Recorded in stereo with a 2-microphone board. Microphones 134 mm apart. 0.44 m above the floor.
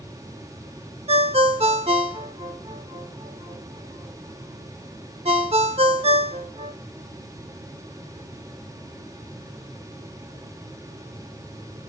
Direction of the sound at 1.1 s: 50° right (ahead or behind).